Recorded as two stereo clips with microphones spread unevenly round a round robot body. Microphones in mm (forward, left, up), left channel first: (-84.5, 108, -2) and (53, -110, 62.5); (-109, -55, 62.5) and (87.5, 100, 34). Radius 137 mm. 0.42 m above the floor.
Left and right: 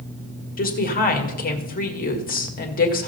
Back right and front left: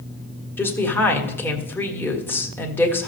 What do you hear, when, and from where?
0.6 s a woman speaking: 135° left, 1.8 m